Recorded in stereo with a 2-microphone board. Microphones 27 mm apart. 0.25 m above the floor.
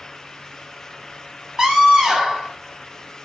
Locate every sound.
1.6 s a scream: 20° right (ahead or behind), 2 m